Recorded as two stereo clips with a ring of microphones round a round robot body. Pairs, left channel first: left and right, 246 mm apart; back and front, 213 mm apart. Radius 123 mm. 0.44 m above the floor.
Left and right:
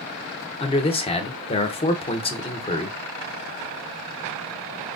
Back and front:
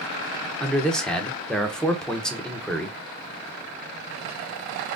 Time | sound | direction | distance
0.6 | a man speaking | 100° left | 0.7 m